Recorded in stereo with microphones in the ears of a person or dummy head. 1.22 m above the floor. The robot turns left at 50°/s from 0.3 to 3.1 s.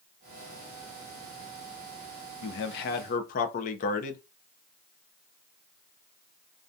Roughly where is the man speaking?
Left.